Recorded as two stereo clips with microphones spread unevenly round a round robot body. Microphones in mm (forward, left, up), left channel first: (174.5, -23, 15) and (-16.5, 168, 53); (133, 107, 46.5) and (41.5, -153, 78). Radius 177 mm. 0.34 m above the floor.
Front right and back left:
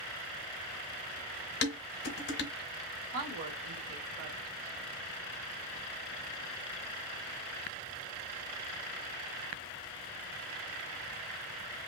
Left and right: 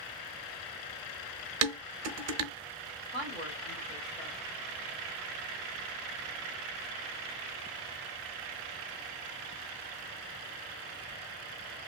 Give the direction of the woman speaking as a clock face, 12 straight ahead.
7 o'clock.